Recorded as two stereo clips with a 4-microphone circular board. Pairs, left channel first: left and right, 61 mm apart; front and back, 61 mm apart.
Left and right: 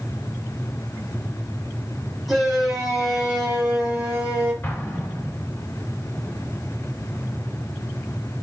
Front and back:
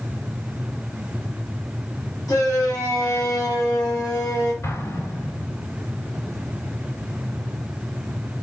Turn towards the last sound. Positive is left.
turn(degrees=30)